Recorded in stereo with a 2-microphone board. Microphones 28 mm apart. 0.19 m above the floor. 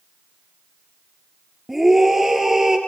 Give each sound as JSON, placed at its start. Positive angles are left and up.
{"t": 1.7, "sound": "a scream", "side_deg": -5, "distance_m": 4.0}